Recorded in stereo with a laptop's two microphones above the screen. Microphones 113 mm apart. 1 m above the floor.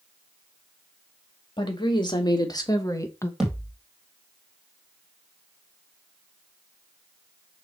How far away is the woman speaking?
About 2 m.